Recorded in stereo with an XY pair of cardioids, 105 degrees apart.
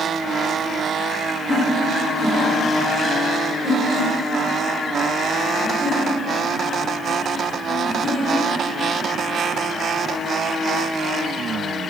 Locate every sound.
1.5 s laughter: 40° left, 2.0 m; by 8.7 s 30° left, 6 m